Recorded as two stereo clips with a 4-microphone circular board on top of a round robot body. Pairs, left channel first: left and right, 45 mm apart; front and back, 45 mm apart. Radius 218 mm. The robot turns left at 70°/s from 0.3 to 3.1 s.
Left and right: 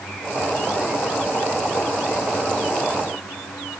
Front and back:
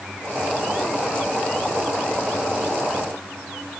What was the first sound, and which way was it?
Only background noise.